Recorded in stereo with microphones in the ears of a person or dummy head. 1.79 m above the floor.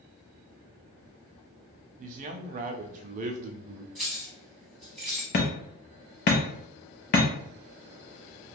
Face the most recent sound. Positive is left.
turn(degrees=40)  # may be behind; listen again after turning